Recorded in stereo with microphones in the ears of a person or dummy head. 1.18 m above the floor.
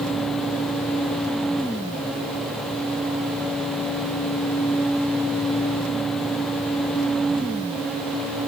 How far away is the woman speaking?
No woman speaking in this recording.